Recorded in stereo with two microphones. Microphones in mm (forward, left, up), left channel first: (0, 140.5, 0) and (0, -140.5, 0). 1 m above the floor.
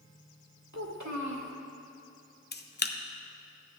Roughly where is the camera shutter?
Left.